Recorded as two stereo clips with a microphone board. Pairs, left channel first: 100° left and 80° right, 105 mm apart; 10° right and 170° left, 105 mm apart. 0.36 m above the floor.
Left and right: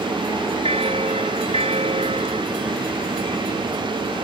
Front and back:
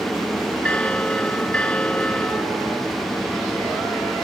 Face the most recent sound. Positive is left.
turn(degrees=-90)